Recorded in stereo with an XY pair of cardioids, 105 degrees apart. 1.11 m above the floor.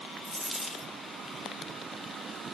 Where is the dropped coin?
10° left, 1.8 m.